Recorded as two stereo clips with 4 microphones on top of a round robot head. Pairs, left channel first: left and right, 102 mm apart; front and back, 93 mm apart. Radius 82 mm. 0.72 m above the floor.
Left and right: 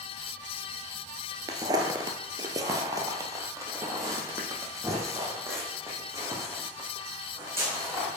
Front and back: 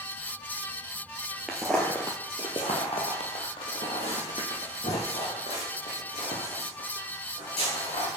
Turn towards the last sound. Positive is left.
turn(degrees=-25)